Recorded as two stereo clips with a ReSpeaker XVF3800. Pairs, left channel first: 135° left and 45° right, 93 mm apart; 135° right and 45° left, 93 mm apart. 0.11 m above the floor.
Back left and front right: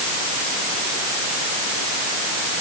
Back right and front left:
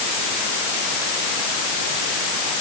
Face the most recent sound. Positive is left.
No sound to turn to.